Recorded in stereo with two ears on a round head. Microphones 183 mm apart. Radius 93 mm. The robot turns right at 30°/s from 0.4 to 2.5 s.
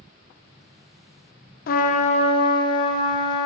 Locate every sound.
1.7 s a trumpet: 45° left (ahead or behind), 0.5 m; by 3.5 s 20° left (ahead or behind), 0.5 m